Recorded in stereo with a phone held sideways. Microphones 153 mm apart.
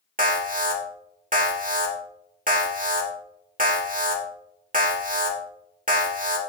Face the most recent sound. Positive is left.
turn(degrees=-60)  # may be behind; listen again after turning